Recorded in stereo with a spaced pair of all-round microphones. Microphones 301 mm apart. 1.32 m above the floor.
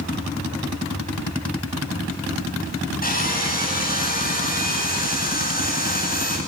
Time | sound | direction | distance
3.0 | sawing | 30° left (ahead or behind) | 10 m